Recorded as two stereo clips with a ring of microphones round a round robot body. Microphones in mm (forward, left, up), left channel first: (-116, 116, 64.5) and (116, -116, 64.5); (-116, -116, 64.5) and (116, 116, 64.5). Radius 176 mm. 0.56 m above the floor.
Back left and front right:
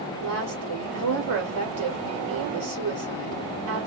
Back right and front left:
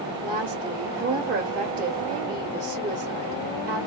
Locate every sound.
0.2 s a woman speaking: 15° right, 1.6 m